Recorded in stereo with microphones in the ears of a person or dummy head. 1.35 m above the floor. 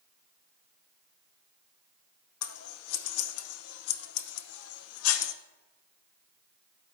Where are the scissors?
80° left, 0.8 m.